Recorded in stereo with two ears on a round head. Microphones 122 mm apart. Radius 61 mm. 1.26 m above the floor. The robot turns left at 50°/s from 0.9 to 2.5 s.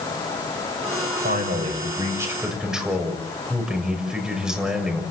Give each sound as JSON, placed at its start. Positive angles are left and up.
{"t": 1.2, "sound": "a man speaking", "azimuth_deg": -110, "distance_m": 6.5}